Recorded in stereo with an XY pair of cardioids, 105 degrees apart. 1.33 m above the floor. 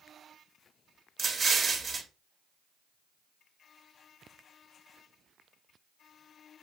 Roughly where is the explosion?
Ahead right.